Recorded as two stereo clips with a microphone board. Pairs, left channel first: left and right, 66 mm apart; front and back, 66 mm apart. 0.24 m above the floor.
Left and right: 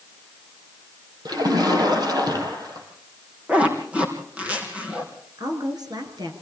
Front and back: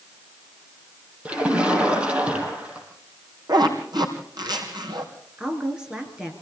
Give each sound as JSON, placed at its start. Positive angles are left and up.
{"t": 1.2, "sound": "a splash", "azimuth_deg": -105, "distance_m": 5.0}
{"t": 3.5, "sound": "a zipper", "azimuth_deg": -160, "distance_m": 4.0}
{"t": 5.4, "sound": "a woman speaking", "azimuth_deg": -100, "distance_m": 4.5}